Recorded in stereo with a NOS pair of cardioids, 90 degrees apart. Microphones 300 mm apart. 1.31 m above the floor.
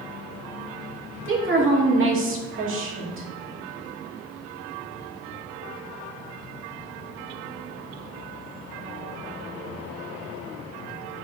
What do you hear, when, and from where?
1.2 s a woman speaking: 45° right, 2.5 m